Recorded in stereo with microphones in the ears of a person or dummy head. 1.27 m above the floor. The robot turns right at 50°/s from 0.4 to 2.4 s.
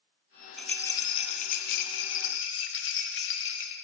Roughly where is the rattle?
Ahead.